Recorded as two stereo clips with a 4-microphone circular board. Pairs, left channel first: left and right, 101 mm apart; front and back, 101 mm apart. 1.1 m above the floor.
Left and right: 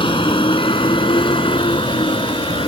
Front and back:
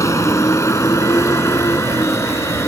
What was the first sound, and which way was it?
A vehicle, 60° left.